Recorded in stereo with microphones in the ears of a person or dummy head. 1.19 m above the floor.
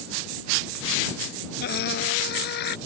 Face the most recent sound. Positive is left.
turn(degrees=65)  # may be behind; listen again after turning